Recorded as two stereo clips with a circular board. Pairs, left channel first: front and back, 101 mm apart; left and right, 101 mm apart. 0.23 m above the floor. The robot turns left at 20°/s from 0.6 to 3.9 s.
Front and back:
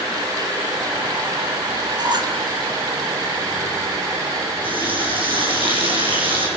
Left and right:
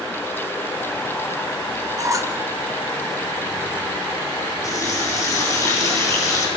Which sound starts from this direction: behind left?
A running tap, at 4.6 s.